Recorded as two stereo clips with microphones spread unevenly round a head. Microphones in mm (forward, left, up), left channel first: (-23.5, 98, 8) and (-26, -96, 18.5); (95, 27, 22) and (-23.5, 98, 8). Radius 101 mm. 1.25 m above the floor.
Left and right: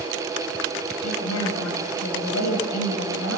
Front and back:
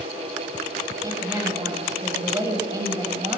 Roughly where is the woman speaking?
Left.